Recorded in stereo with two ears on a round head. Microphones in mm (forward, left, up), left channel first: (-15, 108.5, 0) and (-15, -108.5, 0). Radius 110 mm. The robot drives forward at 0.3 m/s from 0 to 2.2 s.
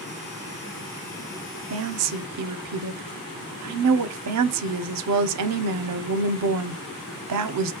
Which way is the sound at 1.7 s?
55° right (ahead or behind).